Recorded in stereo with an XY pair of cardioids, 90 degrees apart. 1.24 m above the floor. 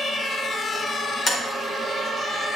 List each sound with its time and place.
1.3 s tapping: 35° left, 4 m